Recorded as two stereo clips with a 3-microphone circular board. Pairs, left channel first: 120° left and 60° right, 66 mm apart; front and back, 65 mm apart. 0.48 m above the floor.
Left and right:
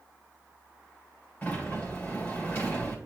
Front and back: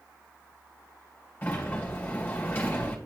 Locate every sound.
1.4 s a sliding door: 60° left, 2.5 m